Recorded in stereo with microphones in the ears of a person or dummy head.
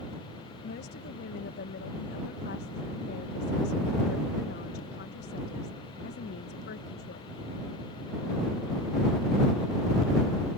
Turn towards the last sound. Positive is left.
turn(degrees=65)  # may be behind; listen again after turning